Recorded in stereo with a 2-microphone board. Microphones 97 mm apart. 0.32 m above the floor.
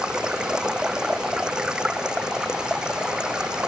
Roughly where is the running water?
Centre.